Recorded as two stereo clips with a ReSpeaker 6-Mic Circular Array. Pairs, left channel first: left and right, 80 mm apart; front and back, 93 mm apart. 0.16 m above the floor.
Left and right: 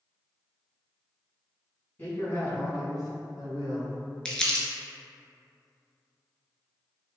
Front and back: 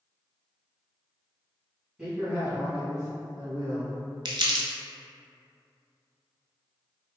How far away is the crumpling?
About 0.6 m.